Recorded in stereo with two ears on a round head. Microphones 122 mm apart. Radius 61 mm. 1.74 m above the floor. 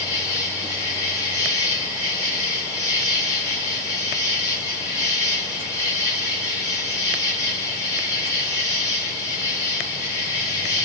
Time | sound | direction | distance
0.0 | an insect | 25° left (ahead or behind) | 1.5 m